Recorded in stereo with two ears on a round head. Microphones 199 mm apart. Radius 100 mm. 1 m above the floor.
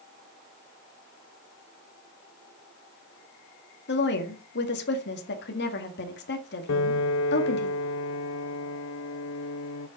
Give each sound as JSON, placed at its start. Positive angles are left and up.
{"t": 3.9, "sound": "a woman speaking", "side_deg": 55, "distance_m": 1.9}
{"t": 6.7, "sound": "a piano", "side_deg": 65, "distance_m": 0.6}